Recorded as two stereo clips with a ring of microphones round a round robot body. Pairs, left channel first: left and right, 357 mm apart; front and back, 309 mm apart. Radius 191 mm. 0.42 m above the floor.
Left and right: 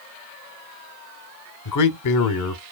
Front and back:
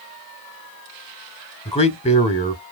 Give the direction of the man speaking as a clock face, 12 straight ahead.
10 o'clock.